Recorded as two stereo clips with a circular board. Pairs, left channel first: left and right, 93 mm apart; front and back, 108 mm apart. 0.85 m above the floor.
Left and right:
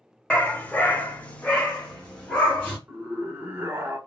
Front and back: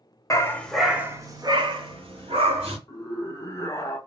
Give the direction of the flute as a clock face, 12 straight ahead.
I don't hear a flute.